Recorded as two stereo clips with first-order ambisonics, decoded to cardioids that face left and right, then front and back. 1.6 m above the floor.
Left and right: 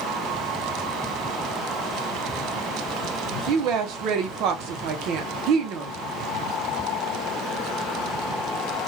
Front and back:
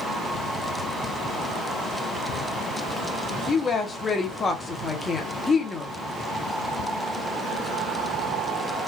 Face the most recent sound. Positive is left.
turn(degrees=-70)